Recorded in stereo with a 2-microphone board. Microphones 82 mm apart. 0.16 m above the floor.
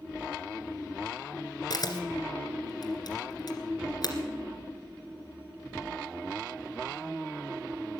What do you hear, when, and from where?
1.7 s a camera shutter: 55° left (ahead or behind), 1.8 m